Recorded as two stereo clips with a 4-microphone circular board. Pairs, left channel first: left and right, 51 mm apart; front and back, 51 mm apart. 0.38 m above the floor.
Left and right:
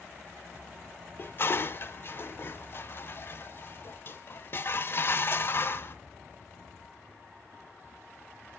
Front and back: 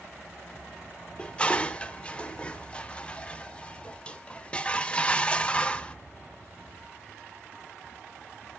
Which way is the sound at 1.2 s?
65° left.